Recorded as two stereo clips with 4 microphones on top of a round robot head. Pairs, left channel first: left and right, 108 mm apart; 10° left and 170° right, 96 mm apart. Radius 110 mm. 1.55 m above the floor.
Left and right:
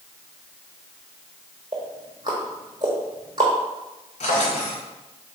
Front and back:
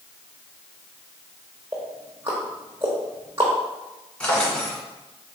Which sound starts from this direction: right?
Ticking, at 1.7 s.